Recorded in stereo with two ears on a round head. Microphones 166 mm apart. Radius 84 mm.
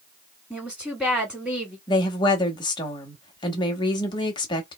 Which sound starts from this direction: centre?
A woman speaking, at 0.5 s.